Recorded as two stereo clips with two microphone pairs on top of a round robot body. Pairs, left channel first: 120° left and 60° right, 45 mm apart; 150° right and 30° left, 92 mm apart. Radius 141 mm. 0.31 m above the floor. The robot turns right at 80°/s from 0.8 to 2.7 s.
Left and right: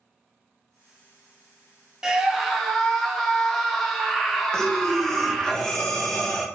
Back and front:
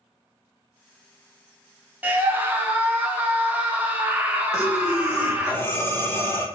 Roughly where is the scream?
Ahead.